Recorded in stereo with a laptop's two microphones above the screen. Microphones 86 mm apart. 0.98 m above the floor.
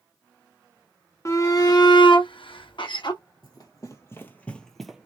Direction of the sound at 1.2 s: 35° left (ahead or behind).